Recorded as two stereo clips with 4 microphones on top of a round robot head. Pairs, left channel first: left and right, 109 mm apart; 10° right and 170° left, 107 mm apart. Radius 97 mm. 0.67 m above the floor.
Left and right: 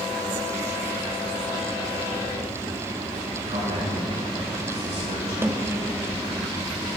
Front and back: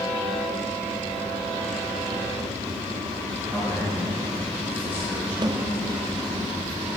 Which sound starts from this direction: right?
A man speaking, at 3.5 s.